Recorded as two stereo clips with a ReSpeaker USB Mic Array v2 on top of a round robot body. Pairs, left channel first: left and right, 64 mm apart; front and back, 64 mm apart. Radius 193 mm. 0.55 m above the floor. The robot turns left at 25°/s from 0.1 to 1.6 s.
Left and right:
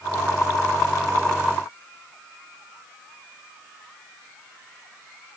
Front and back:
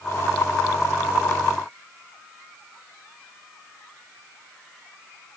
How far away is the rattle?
No rattle in this recording.